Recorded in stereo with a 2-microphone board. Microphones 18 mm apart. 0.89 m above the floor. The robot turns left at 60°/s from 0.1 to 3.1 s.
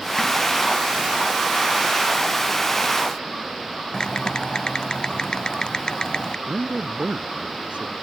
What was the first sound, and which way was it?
Typing on a keyboard, 50° left (ahead or behind).